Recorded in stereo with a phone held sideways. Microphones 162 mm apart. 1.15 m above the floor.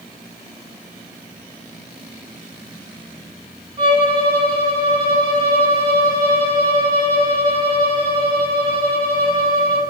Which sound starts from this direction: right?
A violin, at 3.8 s.